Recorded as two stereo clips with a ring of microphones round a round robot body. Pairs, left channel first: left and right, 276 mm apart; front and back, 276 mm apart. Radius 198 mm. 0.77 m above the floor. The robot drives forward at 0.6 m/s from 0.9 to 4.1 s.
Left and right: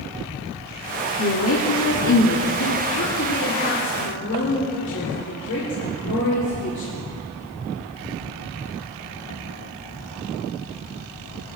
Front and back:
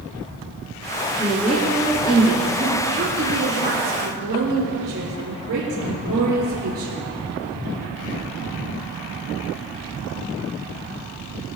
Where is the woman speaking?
80° left, 1.6 m; by 6.9 s 140° left, 2 m.